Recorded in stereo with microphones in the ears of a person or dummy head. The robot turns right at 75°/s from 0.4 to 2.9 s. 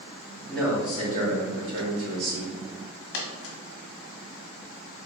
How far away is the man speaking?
About 2.5 m.